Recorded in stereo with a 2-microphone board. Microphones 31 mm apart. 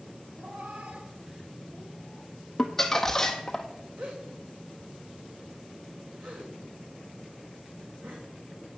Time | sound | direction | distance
0.4 | a cat meowing | 65° right (ahead or behind) | 1.7 m
2.6 | crumpling | 15° left (ahead or behind) | 0.9 m
4.0 | a gasp | 80° right | 2.5 m